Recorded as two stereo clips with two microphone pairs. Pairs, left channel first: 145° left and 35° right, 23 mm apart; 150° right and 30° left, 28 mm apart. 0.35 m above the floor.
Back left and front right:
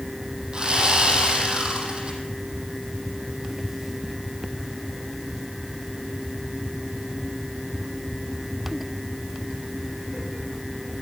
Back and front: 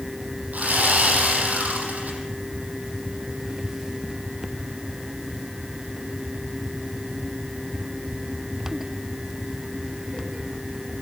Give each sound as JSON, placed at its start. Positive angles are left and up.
{"t": 0.5, "sound": "sawing", "azimuth_deg": 10, "distance_m": 7.0}